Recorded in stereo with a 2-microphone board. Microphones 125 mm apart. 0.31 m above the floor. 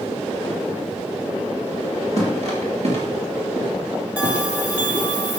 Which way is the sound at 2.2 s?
60° right (ahead or behind).